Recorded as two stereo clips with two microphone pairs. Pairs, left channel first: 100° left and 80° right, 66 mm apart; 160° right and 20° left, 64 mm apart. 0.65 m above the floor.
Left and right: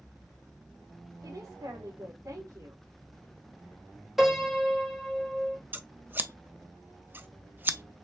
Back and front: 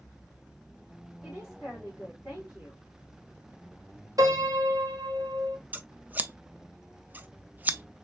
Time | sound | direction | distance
1.2 | a woman speaking | 50° right | 3.5 m
4.2 | a piano | 5° left | 2.5 m
5.7 | scissors | 35° right | 0.5 m